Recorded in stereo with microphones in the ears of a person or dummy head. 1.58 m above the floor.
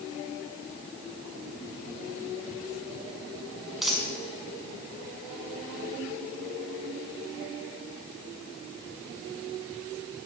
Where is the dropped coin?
Centre (ahead or behind), 5.5 m.